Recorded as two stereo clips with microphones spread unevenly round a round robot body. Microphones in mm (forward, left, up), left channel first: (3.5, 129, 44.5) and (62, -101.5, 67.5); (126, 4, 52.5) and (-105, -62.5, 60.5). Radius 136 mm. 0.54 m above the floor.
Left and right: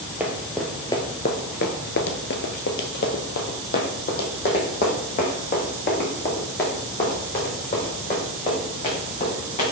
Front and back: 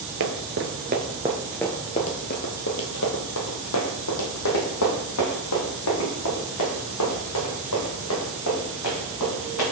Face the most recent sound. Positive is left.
turn(degrees=50)